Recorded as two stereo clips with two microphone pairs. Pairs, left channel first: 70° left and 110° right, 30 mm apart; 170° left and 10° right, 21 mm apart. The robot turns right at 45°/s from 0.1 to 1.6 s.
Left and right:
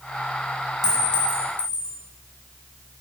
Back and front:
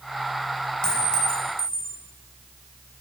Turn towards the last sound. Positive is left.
turn(degrees=-150)